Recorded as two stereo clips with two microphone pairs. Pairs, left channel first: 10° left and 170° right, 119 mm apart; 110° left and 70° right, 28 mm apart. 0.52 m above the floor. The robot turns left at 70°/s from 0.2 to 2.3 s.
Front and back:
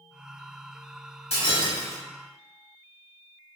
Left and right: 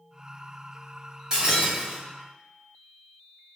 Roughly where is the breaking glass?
Ahead.